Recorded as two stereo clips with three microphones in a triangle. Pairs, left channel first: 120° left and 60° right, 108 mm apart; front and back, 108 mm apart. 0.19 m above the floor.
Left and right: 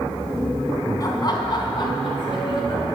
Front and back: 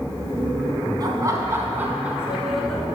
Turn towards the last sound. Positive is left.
turn(degrees=85)